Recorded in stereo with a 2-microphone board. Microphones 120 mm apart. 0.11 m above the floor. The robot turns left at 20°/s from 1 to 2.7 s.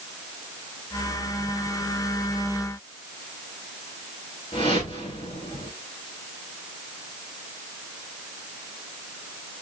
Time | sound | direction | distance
4.5 | a whoosh | 45° left (ahead or behind) | 4.5 m